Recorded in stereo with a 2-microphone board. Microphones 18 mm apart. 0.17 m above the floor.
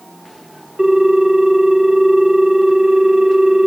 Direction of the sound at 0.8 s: 25° right (ahead or behind).